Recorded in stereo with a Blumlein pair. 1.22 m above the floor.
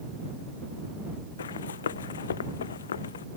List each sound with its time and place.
1.4 s running footsteps: 65° left